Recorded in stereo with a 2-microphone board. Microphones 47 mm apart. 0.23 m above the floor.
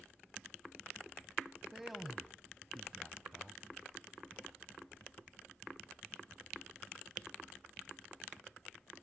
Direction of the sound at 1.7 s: 5° right (ahead or behind).